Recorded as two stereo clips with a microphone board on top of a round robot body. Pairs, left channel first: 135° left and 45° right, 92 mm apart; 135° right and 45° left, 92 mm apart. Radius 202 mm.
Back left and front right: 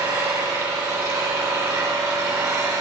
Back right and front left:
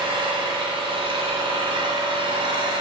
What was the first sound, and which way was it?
An engine running, 10° left.